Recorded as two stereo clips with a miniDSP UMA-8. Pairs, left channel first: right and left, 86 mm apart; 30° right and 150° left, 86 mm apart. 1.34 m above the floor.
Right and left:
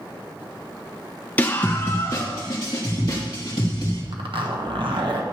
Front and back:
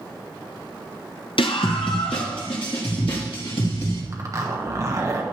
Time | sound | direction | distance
1.4 | a scream | 20° right | 0.6 m
4.1 | a zipper | 100° left | 1.4 m